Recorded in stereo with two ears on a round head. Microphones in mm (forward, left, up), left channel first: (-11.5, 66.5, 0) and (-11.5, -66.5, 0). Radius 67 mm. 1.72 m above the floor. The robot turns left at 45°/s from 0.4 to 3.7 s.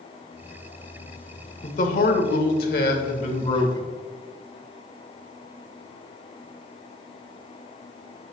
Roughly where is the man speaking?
Behind left.